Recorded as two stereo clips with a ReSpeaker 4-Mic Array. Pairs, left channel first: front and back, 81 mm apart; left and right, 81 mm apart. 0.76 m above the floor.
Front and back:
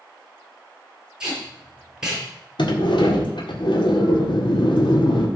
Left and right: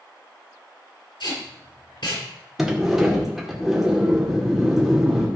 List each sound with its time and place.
1.2 s tape being pulled: 100° left, 5 m
2.6 s a sliding door: 5° right, 1.8 m